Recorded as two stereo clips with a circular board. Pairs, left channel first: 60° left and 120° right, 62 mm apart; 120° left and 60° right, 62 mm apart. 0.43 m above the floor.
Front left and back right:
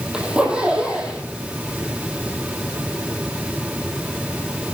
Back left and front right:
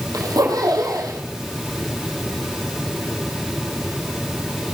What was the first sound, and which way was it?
A zipper, 45° right.